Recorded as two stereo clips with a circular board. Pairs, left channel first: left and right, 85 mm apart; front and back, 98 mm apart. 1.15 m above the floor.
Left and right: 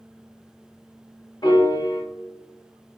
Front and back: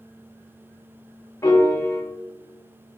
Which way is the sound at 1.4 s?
55° left.